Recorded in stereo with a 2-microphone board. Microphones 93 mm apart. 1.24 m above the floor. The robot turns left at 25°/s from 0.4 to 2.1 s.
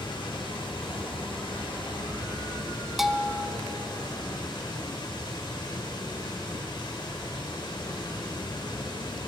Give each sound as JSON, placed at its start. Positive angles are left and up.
{"t": 0.0, "sound": "running water", "azimuth_deg": 105, "distance_m": 1.8}
{"t": 3.0, "sound": "a bell", "side_deg": 0, "distance_m": 0.5}